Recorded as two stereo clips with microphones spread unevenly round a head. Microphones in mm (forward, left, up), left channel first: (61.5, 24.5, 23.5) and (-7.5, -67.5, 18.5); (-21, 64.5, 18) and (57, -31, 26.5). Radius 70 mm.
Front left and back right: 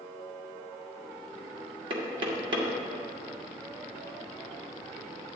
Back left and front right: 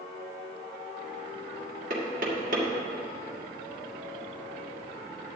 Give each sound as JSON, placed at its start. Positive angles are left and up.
{"t": 1.9, "sound": "knocking", "azimuth_deg": -85, "distance_m": 1.9}